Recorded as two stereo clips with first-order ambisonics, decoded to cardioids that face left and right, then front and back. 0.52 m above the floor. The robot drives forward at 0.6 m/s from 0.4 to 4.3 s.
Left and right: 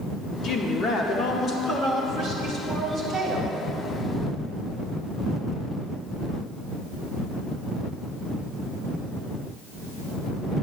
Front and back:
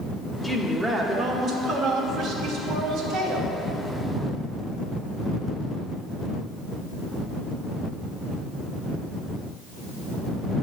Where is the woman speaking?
80° left, 1.0 m; by 3.6 s 165° left, 2 m.